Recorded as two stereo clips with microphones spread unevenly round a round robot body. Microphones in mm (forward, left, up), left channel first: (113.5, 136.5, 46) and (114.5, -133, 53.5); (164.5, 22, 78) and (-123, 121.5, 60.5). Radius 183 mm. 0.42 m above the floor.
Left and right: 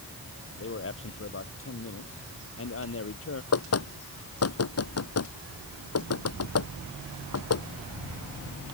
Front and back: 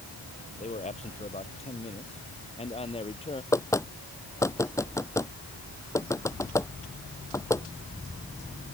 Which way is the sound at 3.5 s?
60° left.